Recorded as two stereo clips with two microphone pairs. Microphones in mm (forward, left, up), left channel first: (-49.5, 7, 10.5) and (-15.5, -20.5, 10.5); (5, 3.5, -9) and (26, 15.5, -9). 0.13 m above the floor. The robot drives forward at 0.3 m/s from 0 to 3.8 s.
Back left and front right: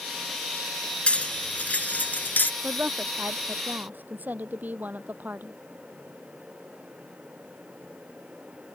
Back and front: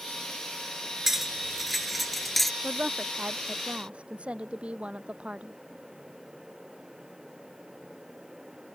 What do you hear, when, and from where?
1.1 s cutlery clinking: 100° left; by 2.5 s 130° left
2.6 s a woman speaking: 5° left